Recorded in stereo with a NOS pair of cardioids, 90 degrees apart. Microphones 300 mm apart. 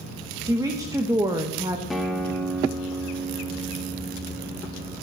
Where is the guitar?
Straight ahead, 1.4 m.